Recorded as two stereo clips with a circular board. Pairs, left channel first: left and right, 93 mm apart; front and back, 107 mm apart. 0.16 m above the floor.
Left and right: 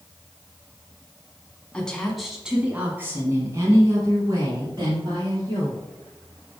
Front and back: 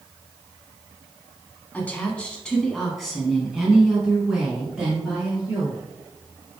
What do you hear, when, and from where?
1.7 s a woman speaking: 40° left, 1.0 m; by 5.8 s 105° right, 2 m